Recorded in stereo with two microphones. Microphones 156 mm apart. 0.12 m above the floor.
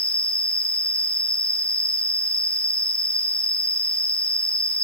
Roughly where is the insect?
Centre.